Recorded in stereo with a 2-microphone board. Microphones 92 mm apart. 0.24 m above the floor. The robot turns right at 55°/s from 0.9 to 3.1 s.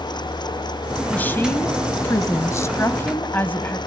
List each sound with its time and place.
1.1 s a woman speaking: 30° left, 1.1 m; by 3.8 s 140° left, 1.1 m